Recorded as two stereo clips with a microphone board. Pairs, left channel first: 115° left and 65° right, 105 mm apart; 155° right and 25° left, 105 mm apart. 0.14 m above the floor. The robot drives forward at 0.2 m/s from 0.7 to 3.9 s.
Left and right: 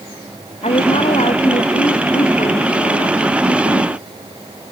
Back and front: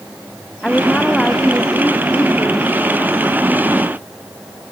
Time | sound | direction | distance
0.6 | a woman speaking | 120° left | ?